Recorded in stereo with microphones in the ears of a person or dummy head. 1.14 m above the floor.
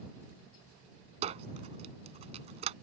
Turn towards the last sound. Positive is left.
turn(degrees=-40)  # may be behind; listen again after turning